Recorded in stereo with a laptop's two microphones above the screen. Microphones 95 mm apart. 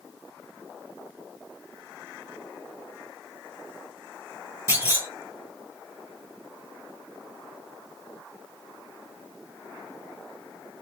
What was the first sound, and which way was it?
A clunk, 30° right (ahead or behind).